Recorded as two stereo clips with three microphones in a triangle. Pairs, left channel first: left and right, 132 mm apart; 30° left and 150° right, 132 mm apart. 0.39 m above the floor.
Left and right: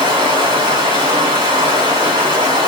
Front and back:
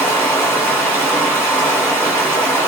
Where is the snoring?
No snoring in this recording.